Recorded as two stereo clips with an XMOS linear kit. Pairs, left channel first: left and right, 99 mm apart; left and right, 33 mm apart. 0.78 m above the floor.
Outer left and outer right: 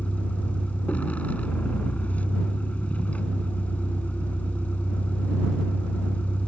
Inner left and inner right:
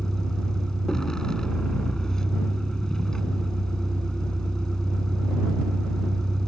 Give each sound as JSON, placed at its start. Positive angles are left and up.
{"t": 0.0, "sound": "a vehicle", "side_deg": 15}